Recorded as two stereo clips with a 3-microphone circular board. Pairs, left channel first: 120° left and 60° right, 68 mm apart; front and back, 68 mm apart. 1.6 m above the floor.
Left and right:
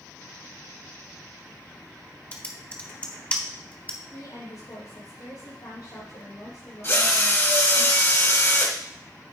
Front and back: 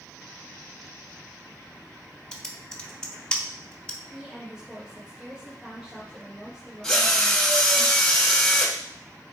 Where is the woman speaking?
105° left, 4.5 m.